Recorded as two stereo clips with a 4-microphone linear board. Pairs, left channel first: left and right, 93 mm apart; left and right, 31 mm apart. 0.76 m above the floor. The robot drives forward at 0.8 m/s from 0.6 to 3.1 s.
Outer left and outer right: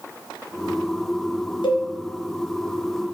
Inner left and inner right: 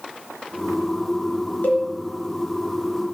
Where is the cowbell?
60° left (ahead or behind), 2.5 m.